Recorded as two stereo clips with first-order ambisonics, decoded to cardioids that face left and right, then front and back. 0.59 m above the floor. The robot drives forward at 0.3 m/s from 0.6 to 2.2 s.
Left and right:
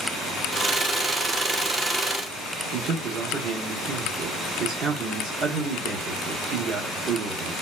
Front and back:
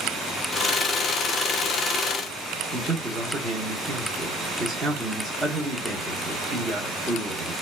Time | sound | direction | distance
2.7 | a man speaking | 115° right | 0.8 m